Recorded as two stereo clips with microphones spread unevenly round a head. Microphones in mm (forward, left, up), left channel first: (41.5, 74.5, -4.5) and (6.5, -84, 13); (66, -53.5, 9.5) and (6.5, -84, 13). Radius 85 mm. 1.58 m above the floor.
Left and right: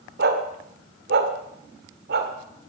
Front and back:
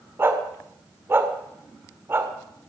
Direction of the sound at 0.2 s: 100° right.